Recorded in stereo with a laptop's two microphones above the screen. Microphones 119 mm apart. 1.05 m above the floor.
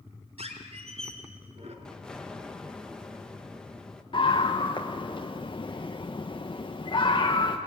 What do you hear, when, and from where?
0.4 s a squeak: 60° right (ahead or behind), 3.5 m
1.9 s an explosion: 5° left (ahead or behind), 1.3 m
4.1 s a scream: 40° left (ahead or behind), 1.1 m